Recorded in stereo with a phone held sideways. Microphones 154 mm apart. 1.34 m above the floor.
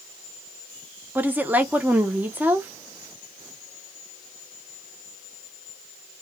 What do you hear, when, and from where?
1.1 s a woman speaking: 10° right (ahead or behind), 0.7 m